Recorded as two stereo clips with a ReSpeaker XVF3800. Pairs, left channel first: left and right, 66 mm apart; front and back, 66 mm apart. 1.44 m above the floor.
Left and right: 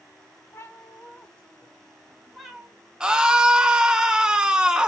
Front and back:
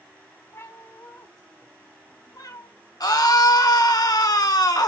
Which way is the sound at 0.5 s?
40° left.